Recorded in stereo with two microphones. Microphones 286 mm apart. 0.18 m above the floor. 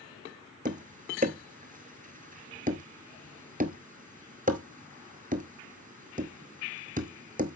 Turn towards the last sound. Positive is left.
turn(degrees=-30)  # may be behind; listen again after turning